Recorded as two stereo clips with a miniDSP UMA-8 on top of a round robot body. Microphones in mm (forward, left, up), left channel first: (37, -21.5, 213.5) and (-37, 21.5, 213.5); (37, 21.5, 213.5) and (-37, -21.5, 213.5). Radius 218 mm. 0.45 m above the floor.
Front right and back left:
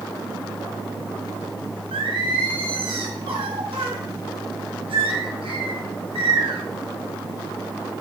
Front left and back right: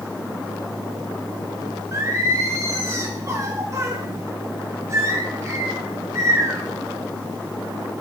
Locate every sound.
1.9 s singing: 155° left, 2 m